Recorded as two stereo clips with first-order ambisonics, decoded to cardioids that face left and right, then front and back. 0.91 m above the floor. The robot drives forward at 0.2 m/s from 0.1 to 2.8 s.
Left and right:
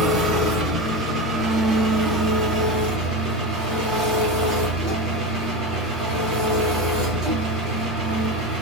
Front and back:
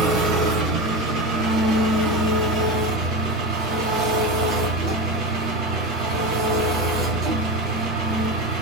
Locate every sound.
0.0 s an engine running: 150° right, 1.6 m; by 8.6 s 155° right, 2 m